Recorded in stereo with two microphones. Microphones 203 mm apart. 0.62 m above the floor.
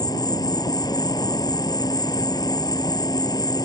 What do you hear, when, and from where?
0.0 s an insect: 20° left (ahead or behind)